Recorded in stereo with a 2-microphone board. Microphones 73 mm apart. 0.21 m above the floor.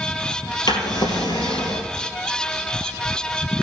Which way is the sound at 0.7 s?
70° left (ahead or behind).